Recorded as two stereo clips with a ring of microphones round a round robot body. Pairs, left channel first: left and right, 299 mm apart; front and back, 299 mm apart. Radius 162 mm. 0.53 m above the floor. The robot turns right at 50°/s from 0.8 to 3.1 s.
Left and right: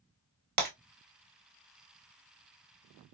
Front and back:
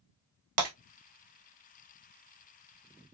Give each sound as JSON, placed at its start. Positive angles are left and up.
{"t": 0.6, "sound": "breaking glass", "azimuth_deg": -145, "distance_m": 1.0}